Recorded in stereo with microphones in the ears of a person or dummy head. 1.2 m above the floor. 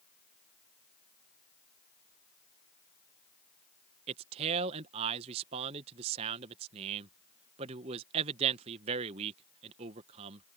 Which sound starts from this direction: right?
A man speaking, at 4.1 s.